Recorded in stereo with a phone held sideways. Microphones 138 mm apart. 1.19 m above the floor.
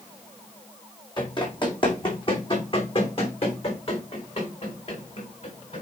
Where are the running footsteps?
35° left (ahead or behind), 2.5 m; by 5.8 s 45° left (ahead or behind), 5 m.